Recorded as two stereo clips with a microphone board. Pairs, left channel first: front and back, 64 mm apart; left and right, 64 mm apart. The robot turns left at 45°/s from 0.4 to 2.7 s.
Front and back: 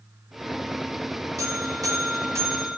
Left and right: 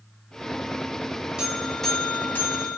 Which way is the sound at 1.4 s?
170° right.